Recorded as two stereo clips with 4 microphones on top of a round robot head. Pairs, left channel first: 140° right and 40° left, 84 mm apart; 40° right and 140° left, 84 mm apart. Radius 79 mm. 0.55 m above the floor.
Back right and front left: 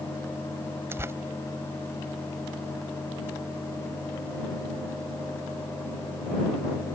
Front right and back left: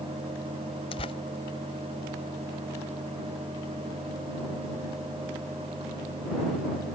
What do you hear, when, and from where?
0.9 s tearing paper: 20° right